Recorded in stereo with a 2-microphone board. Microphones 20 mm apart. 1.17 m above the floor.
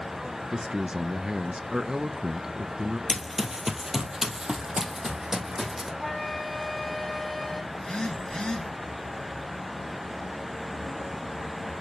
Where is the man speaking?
40° right (ahead or behind), 0.6 m.